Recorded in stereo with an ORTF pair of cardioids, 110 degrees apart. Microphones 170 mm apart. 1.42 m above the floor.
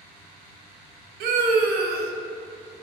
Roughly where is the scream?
Ahead right.